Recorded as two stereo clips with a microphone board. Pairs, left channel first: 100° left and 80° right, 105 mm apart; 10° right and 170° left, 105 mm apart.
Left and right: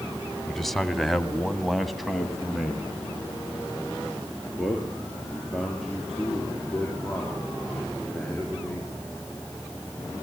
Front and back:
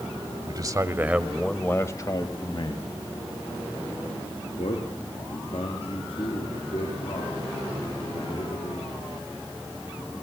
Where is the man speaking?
175° right, 1.8 m; by 9.0 s 10° left, 11 m.